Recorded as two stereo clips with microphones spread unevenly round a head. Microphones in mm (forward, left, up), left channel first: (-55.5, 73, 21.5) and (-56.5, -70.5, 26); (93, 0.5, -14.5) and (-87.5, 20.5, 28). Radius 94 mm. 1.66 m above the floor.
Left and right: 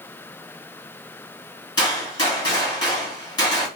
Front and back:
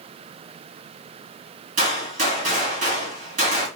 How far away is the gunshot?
About 1.9 m.